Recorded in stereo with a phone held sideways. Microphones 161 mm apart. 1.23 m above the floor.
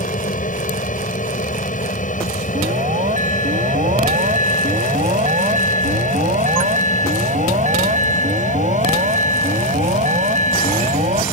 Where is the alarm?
50° right (ahead or behind).